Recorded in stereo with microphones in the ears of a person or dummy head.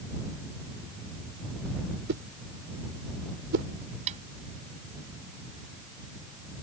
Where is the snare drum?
30° right (ahead or behind).